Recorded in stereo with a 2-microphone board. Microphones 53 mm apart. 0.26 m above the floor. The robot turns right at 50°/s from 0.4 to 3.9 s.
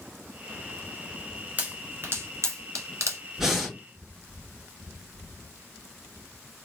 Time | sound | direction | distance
1.6 | a pop | 35° right (ahead or behind) | 1.1 m
3.4 | breathing | 5° right (ahead or behind) | 1.9 m